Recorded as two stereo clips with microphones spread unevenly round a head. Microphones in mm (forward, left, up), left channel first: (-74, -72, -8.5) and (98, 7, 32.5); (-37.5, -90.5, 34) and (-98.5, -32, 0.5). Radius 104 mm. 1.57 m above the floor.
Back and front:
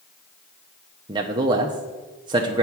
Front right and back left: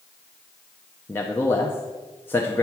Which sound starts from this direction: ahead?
A man speaking, at 1.1 s.